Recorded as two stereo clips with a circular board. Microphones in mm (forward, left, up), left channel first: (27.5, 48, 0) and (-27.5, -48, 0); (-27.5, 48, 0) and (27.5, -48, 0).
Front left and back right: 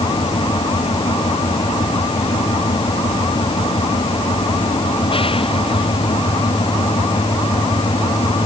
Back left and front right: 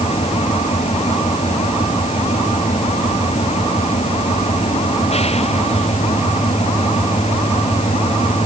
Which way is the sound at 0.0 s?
100° left.